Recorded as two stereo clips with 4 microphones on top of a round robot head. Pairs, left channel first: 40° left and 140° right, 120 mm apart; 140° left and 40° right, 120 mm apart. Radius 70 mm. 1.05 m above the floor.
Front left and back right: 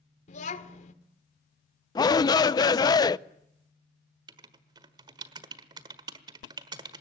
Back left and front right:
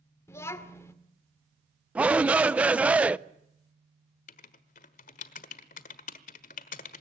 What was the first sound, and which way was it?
A child speaking, 70° left.